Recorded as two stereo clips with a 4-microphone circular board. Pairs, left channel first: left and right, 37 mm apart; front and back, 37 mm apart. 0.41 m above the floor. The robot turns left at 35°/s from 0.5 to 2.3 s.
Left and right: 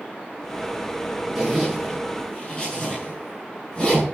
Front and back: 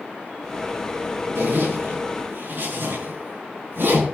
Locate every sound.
1.4 s a zipper: 165° right, 6.5 m; by 4.0 s 160° left, 6.5 m